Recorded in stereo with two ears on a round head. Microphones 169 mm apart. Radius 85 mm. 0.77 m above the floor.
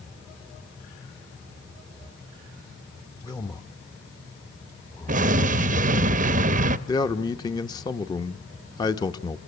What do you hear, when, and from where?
3.2 s a man speaking: 20° left (ahead or behind), 0.9 m
5.1 s an explosion: 45° right (ahead or behind), 0.8 m
6.9 s a man speaking: 20° left (ahead or behind), 0.9 m